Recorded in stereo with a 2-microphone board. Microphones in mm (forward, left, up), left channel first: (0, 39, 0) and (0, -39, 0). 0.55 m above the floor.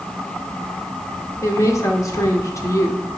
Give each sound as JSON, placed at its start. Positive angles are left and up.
{"t": 1.4, "sound": "a woman speaking", "side_deg": 45, "distance_m": 1.1}